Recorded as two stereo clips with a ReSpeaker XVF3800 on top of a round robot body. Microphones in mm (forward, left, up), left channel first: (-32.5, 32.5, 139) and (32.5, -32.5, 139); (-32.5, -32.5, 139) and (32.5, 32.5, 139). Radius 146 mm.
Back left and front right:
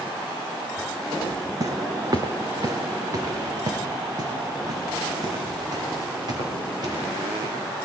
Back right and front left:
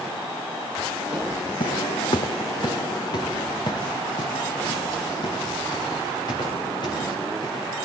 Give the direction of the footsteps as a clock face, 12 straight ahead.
3 o'clock.